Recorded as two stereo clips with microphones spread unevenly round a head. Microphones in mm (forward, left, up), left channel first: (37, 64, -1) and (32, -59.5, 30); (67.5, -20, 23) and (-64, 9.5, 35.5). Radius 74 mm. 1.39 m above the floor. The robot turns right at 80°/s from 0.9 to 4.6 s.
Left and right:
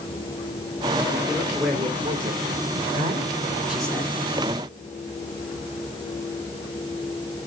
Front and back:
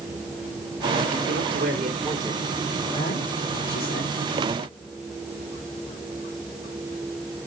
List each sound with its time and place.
1.3 s a man speaking: 155° left, 3.5 m; by 4.2 s 25° left, 3.5 m